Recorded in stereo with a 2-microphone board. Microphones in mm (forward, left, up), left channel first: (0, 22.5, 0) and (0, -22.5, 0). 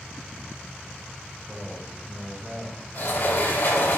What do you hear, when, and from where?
1.5 s a man speaking: 10° right (ahead or behind), 2.5 m
3.0 s a sliding door: 60° left (ahead or behind), 3 m